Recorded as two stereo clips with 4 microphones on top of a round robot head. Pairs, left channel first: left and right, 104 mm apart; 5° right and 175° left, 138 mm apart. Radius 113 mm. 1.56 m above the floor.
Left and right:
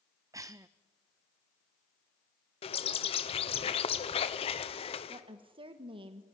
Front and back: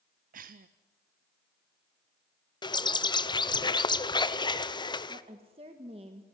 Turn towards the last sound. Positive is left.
turn(degrees=-125)